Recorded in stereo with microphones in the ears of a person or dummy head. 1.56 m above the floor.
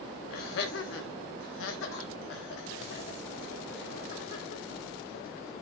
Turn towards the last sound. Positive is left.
turn(degrees=45)  # may be behind; listen again after turning